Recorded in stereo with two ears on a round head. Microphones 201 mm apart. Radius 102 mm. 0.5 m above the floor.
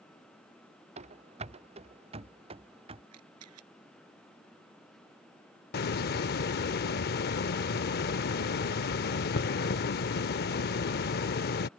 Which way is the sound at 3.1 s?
75° right (ahead or behind).